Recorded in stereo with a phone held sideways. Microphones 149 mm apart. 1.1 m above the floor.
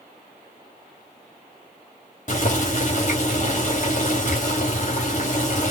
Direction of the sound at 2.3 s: 55° left (ahead or behind).